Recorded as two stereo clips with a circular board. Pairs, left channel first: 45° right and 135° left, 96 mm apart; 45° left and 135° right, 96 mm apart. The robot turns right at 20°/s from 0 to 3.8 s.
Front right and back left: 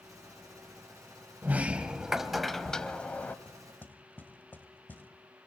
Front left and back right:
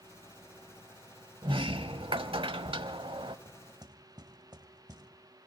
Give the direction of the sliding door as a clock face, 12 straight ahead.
5 o'clock.